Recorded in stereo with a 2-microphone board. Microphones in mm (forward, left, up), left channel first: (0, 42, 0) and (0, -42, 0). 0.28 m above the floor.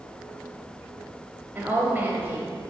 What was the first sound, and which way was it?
A woman speaking, 25° right (ahead or behind).